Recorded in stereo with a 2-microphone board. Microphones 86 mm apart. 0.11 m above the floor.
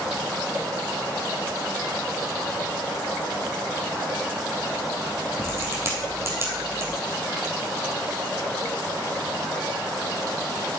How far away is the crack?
About 2.5 m.